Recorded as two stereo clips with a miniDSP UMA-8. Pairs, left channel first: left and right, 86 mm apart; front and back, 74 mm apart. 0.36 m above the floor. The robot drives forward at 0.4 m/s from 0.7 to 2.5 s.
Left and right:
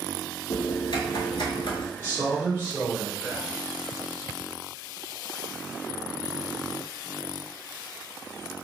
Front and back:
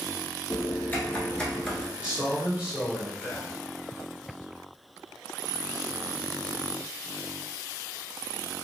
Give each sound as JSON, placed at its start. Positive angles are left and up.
{"t": 0.5, "sound": "typing on a keyboard", "azimuth_deg": 60, "distance_m": 1.0}
{"t": 2.0, "sound": "a man speaking", "azimuth_deg": 125, "distance_m": 1.3}